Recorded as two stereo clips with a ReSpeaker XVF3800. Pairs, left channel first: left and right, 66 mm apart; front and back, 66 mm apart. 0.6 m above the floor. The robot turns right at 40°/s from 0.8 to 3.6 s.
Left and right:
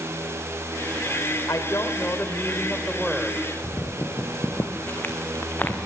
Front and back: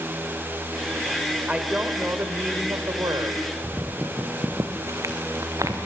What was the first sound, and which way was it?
A woman speaking, 110° left.